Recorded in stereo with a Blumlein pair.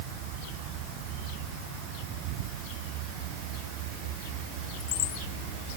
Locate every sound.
Only background noise.